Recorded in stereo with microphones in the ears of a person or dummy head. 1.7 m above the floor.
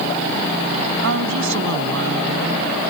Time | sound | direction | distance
1.0 | a woman speaking | 70° right (ahead or behind) | ?